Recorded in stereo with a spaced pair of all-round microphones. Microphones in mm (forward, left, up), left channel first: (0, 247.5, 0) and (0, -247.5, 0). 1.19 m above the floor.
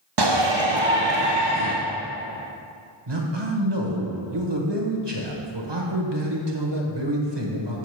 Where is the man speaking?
60° right (ahead or behind), 1.2 m.